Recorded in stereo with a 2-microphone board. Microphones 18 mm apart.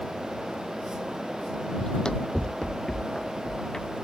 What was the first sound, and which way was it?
Running footsteps, 50° left (ahead or behind).